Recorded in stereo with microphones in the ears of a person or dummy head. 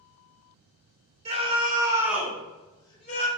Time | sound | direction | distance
1.2 | a scream | 35° right (ahead or behind) | 1.2 m